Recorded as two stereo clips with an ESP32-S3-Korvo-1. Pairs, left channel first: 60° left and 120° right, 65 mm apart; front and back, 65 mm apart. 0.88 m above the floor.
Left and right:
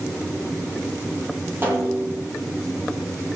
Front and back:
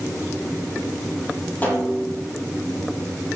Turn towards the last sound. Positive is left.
turn(degrees=-65)